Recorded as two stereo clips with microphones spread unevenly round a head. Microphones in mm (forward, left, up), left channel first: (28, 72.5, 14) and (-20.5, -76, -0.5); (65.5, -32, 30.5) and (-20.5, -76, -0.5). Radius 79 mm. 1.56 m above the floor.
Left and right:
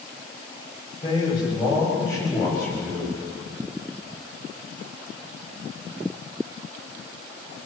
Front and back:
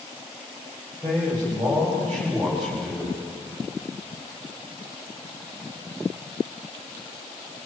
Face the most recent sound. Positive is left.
turn(degrees=150)